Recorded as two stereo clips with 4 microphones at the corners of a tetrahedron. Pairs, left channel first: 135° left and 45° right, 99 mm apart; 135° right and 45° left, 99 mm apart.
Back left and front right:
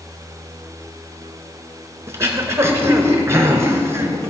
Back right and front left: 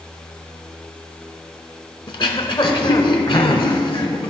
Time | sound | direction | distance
2.1 | throat clearing | 105° right | 0.8 m